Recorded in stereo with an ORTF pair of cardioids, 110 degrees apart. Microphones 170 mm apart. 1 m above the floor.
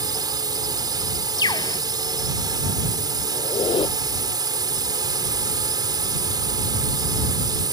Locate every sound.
0.0 s a drone: 25° right
1.4 s a bird: 25° left
3.3 s a squeak: 30° left